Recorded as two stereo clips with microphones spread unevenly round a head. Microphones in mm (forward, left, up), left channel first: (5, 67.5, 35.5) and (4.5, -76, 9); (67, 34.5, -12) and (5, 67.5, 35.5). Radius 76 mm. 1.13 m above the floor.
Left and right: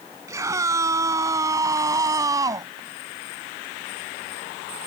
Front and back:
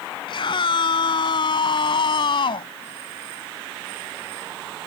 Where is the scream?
20° right.